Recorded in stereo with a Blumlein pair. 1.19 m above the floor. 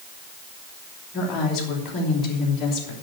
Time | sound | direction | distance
1.1 | a woman speaking | 30° left | 3 m